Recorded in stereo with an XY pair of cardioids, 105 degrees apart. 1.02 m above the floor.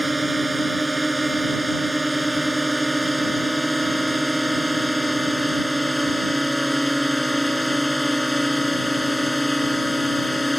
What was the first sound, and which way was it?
A drone, 15° right.